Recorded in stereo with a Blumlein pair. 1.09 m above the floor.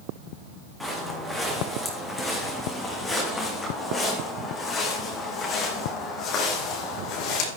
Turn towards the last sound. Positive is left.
turn(degrees=40)